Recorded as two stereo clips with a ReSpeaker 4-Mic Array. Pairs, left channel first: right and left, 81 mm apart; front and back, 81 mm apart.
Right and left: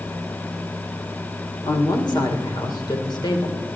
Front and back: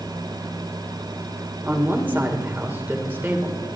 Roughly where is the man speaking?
Behind right.